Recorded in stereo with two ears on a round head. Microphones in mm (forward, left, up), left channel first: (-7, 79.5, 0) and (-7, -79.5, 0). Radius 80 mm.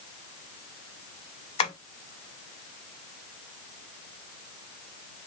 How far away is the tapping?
About 0.9 m.